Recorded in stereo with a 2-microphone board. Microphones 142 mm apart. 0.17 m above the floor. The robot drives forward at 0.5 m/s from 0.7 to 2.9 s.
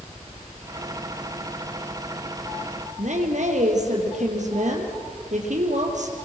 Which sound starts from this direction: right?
A woman speaking, at 3.0 s.